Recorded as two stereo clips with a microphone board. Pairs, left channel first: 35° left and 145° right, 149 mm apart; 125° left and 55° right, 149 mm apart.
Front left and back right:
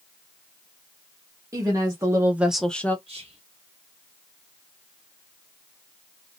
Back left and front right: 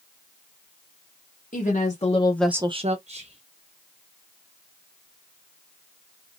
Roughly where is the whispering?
Right.